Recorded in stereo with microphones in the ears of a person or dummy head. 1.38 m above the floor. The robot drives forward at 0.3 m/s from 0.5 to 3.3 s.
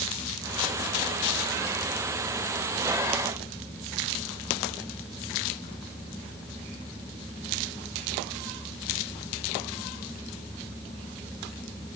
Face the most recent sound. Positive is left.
No sound to turn to.